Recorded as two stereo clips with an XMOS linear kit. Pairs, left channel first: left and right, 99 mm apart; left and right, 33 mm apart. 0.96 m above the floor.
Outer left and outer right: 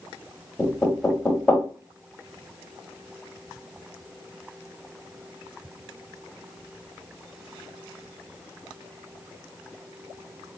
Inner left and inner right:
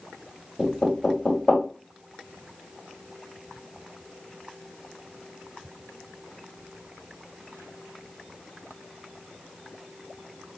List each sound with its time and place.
0.6 s knocking: 5° left (ahead or behind), 1.3 m